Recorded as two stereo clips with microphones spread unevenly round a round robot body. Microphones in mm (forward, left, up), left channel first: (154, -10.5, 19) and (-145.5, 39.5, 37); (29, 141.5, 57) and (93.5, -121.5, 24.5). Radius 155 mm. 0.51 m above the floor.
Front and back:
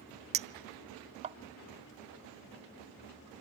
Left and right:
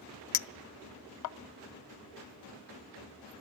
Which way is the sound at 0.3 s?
100° left.